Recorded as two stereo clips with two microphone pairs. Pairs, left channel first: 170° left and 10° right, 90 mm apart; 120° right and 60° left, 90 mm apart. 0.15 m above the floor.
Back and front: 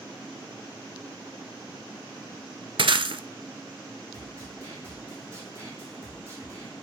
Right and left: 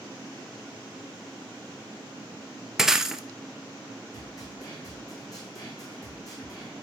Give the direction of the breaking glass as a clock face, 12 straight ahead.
1 o'clock.